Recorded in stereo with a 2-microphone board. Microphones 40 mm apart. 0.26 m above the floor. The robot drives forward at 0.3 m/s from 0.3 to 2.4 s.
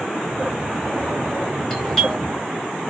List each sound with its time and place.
1.7 s a doorbell: 10° left (ahead or behind), 1.5 m